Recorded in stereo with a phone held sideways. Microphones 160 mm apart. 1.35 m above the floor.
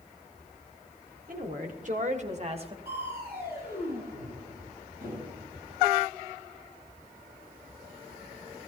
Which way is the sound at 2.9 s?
80° right.